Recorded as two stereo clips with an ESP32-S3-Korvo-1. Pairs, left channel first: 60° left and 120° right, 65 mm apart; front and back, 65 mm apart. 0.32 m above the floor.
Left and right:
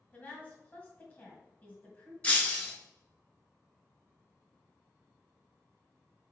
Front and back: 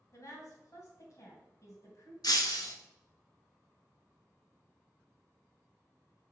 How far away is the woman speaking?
About 2.0 m.